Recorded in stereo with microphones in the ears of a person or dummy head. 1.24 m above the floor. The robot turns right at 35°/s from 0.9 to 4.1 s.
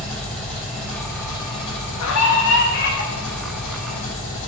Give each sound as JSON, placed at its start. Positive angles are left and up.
{"t": 0.0, "sound": "an engine running", "azimuth_deg": 5, "distance_m": 3.0}
{"t": 2.0, "sound": "a scream", "azimuth_deg": 95, "distance_m": 1.4}